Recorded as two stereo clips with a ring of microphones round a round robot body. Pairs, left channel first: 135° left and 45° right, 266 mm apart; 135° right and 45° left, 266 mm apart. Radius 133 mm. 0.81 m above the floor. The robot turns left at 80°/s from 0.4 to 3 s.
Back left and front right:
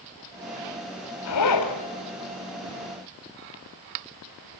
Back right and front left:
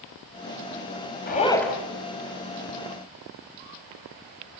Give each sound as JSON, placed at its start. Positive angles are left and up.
{"t": 1.3, "sound": "a zipper", "azimuth_deg": 170, "distance_m": 4.0}